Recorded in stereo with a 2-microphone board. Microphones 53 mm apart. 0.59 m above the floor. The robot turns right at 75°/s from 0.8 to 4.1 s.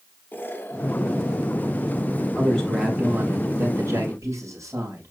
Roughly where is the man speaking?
Behind left.